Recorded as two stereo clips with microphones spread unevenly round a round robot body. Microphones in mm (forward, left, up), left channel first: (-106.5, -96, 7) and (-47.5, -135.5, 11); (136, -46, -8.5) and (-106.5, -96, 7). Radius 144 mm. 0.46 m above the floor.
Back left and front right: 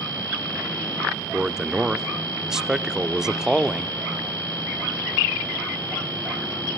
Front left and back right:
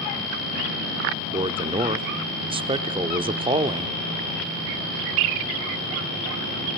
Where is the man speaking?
115° right, 0.7 m.